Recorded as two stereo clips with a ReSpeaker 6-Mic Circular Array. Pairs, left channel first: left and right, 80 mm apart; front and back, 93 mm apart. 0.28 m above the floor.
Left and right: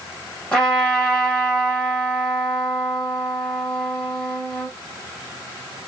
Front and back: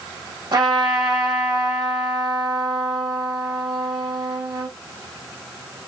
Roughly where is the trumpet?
Behind.